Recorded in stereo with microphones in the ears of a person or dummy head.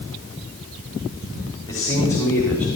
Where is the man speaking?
20° left (ahead or behind), 5 m; by 2.7 s 10° left (ahead or behind), 5 m.